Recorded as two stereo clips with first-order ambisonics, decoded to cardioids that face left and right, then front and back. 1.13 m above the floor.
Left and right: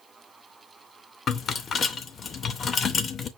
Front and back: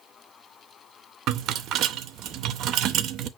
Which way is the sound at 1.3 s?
150° left.